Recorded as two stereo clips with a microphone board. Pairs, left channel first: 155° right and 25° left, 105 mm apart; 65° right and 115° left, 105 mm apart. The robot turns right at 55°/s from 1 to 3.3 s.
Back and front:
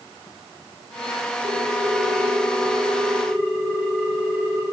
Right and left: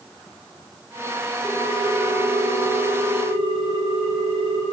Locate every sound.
1.4 s a ringtone: 10° left, 7 m; by 4.6 s 110° left, 7 m